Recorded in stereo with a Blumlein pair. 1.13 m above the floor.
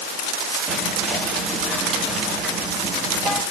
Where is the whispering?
10° right, 1.7 m.